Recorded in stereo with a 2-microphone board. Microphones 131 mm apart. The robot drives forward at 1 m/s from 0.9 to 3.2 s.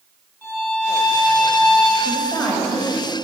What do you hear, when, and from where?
0.4 s a violin: 15° left (ahead or behind), 4.5 m
2.0 s a woman speaking: 5° left (ahead or behind), 3.5 m